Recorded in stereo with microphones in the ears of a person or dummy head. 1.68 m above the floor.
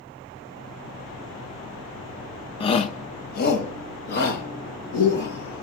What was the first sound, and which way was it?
A shout, 30° left (ahead or behind).